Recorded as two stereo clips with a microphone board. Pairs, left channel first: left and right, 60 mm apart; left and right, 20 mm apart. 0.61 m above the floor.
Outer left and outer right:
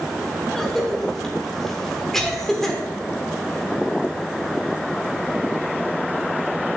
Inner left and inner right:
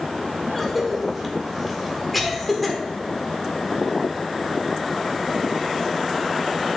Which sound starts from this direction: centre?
A cough, at 0.5 s.